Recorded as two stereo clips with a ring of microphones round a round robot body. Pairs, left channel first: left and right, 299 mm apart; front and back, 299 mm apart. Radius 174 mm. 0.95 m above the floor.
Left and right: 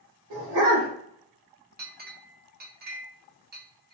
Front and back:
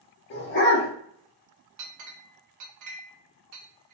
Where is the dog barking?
50° right, 1.0 m.